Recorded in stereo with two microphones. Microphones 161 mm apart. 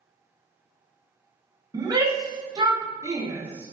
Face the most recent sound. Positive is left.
turn(degrees=-10)  # may be behind; listen again after turning